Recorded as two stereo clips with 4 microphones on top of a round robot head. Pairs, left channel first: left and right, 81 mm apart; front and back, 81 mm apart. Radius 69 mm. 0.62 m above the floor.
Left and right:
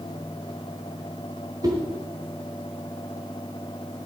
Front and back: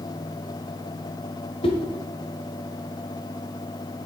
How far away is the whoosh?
About 1.3 m.